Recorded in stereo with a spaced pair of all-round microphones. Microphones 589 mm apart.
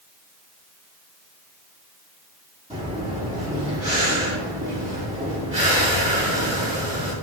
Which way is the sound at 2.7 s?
10° right (ahead or behind).